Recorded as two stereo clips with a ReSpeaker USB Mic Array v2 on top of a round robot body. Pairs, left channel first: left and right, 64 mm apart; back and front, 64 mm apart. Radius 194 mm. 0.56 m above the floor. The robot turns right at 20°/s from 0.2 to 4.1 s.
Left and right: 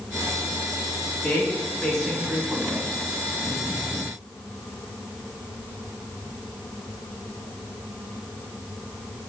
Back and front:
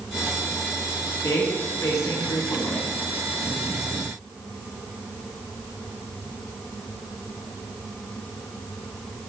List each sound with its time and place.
1.2 s a woman speaking: 160° left, 2.0 m; by 2.9 s 170° right, 2.0 m